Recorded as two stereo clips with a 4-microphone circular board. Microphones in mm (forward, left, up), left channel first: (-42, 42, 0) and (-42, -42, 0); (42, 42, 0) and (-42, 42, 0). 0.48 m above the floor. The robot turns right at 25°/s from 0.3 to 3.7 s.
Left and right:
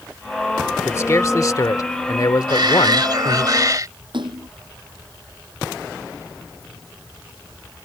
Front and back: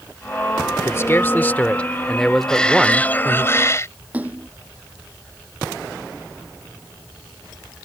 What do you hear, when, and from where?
0.8 s a man speaking: 45° left; by 3.5 s 115° left
2.5 s a shout: 80° right; by 3.9 s 50° right
4.1 s a splash: 105° right